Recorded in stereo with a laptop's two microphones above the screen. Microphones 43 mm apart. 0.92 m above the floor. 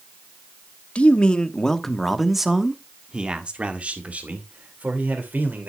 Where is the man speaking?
35° left (ahead or behind), 1.5 m; by 5.7 s 45° right (ahead or behind), 3 m.